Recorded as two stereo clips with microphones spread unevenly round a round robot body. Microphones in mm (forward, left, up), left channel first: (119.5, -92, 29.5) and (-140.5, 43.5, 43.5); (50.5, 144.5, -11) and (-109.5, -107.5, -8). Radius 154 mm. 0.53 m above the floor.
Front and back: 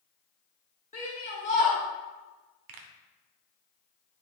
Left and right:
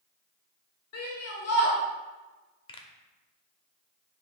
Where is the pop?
130° left, 0.8 m.